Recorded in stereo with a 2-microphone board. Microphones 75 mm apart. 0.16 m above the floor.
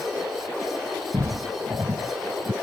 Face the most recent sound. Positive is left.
turn(degrees=-70)  # may be behind; listen again after turning